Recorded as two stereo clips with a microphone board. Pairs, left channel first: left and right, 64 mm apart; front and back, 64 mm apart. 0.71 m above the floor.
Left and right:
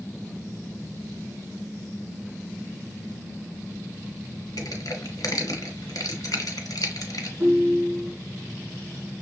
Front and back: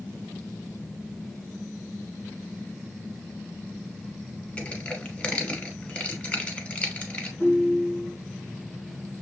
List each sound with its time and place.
4.6 s crushing: 70° left, 1.3 m
7.4 s a ringtone: 35° right, 3 m